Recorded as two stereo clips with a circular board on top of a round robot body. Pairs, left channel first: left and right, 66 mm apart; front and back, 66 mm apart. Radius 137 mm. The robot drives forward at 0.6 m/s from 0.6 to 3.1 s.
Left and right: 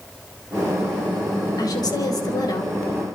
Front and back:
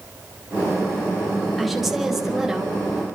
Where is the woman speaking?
90° left, 4.5 m; by 3.1 s 100° left, 4.5 m.